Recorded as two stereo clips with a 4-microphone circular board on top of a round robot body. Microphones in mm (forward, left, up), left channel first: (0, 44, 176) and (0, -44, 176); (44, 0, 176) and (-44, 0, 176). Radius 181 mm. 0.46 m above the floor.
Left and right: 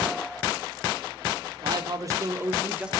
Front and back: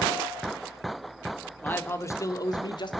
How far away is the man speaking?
About 2 m.